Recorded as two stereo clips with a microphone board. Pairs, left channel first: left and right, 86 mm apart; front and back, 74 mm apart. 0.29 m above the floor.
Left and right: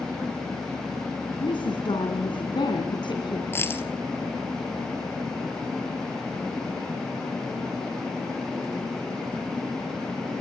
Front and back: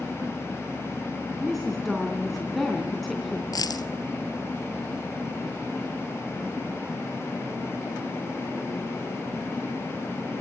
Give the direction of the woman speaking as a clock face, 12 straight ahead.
9 o'clock.